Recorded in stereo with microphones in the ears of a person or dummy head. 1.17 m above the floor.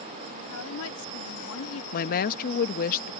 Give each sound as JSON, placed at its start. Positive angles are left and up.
{"t": 0.5, "sound": "a woman speaking", "side_deg": 80}
{"t": 1.9, "sound": "a woman speaking", "side_deg": 50}